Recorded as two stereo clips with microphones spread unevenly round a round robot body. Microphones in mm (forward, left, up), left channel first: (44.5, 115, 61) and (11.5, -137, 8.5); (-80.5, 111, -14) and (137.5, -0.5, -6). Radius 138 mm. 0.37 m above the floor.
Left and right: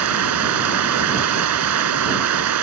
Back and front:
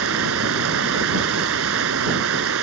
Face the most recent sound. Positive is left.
turn(degrees=-75)